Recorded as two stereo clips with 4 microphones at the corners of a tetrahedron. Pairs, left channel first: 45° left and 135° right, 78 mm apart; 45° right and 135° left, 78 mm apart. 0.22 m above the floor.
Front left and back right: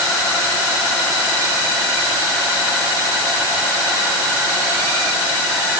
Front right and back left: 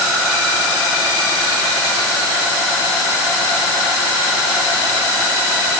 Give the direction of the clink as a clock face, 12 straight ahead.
No clink in this recording.